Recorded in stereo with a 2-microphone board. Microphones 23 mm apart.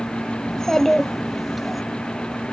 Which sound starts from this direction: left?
A child speaking, at 0.5 s.